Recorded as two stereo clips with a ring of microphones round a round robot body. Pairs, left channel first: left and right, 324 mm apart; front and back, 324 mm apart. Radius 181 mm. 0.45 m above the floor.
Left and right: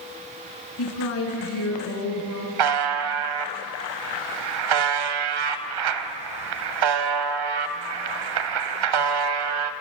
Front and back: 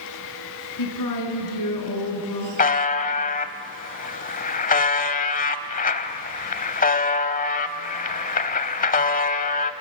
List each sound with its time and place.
0.8 s a woman speaking: 40° left, 5 m
2.6 s a buzzer: 65° right, 1.0 m